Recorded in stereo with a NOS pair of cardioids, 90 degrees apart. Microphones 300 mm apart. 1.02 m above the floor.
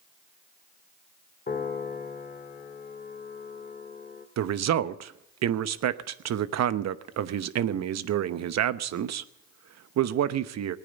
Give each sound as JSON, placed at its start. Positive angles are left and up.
{"t": 1.5, "sound": "a piano", "azimuth_deg": 30, "distance_m": 1.9}
{"t": 4.4, "sound": "a man speaking", "azimuth_deg": -60, "distance_m": 1.0}